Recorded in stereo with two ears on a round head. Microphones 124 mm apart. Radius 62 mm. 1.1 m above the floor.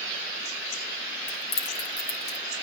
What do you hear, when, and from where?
1.3 s keys jangling: 85° left, 3.5 m